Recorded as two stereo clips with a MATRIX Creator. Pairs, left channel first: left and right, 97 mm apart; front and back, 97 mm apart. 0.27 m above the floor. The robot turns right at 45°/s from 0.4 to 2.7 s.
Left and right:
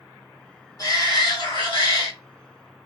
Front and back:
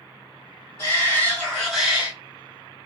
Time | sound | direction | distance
0.8 | a shout | 50° left | 2 m